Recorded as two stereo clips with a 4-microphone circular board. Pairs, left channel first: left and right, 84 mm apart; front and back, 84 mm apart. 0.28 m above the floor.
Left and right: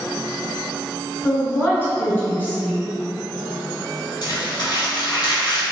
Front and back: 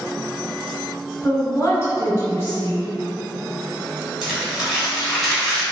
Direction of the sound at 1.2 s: 40° left.